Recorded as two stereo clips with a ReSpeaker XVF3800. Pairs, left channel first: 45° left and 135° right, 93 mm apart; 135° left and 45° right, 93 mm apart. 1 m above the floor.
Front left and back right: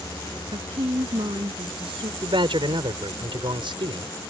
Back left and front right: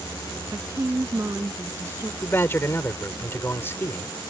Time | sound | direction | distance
0.5 | a woman speaking | 105° right | ?
2.2 | a man speaking | 160° right | ?